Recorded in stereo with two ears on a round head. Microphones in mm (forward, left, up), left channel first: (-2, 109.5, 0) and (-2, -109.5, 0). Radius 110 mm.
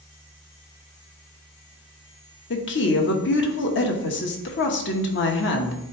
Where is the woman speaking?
50° left (ahead or behind), 1.2 m.